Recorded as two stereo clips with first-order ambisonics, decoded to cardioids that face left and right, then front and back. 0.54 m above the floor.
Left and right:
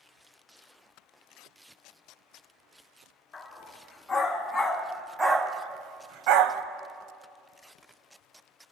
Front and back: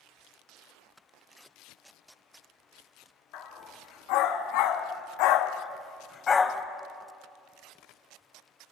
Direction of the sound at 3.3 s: 20° left.